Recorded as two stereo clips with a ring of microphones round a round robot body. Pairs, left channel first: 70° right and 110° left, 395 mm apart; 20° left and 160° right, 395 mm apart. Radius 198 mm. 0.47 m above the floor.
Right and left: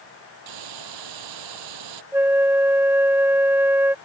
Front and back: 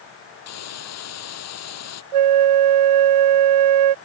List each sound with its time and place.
0.5 s a hiss: 75° left
2.1 s a flute: 165° right